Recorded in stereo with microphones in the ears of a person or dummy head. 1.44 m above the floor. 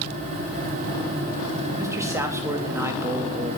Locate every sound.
1.8 s a man speaking: 15° right (ahead or behind), 3 m